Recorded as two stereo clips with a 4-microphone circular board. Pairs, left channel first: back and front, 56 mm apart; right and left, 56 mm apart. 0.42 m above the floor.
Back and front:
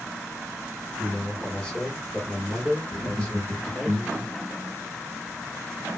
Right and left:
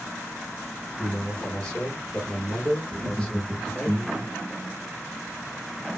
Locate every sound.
1.0 s a man speaking: 130° right, 1.2 m
2.9 s laughter: 90° left, 0.9 m